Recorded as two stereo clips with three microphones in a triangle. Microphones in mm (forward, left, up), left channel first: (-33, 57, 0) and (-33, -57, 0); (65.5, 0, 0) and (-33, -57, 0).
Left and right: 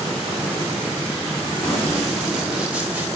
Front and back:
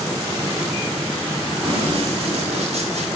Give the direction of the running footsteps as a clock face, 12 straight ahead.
6 o'clock.